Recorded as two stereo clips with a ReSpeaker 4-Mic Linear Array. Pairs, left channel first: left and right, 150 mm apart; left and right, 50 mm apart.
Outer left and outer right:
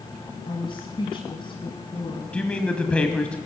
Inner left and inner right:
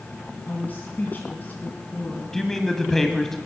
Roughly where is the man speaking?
Centre.